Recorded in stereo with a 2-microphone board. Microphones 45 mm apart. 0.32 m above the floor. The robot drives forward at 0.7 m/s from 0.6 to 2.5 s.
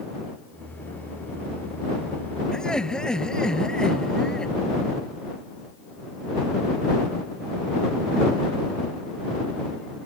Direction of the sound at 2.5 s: 15° left (ahead or behind).